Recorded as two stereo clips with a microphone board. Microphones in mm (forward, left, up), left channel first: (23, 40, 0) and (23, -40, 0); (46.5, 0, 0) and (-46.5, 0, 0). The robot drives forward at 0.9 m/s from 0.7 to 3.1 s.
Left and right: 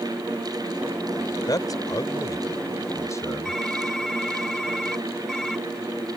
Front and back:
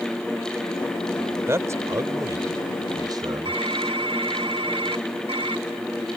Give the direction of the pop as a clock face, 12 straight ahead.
I don't hear a pop.